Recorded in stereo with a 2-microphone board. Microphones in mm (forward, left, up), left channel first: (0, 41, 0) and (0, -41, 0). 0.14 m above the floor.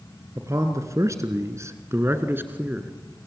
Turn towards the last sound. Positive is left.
turn(degrees=-20)  # may be behind; listen again after turning